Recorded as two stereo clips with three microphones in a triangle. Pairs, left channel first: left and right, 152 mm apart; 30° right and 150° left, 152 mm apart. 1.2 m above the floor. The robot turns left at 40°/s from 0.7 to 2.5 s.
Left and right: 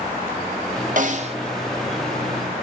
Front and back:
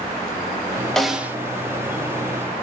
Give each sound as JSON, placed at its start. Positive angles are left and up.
{"t": 1.0, "sound": "a snare drum", "azimuth_deg": -115, "distance_m": 0.6}